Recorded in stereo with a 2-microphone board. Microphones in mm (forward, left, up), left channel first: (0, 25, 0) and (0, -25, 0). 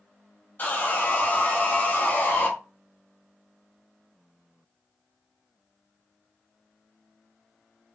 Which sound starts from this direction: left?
Sawing, at 0.6 s.